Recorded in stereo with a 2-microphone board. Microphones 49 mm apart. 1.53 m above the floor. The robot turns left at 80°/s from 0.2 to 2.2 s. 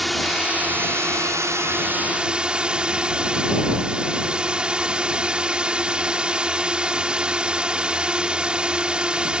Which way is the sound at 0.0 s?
Straight ahead.